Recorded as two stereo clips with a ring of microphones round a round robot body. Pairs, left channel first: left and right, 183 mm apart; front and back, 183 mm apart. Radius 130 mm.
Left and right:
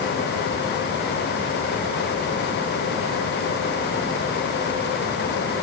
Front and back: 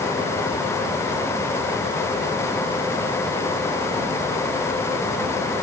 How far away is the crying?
I don't hear crying.